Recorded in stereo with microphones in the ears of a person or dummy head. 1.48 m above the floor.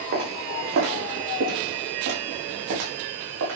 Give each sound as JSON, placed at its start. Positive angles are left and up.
{"t": 0.1, "sound": "footsteps", "side_deg": -65, "distance_m": 5.5}